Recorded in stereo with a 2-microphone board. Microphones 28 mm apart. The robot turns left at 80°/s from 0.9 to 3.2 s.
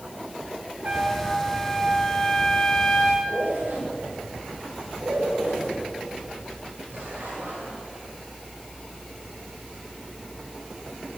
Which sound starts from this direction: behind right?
A trumpet, at 0.8 s.